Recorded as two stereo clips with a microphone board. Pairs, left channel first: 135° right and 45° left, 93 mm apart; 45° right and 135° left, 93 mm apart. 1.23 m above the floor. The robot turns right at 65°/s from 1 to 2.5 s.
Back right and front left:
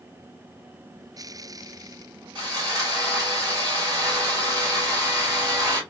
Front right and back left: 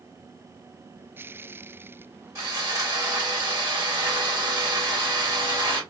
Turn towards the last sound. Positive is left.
turn(degrees=90)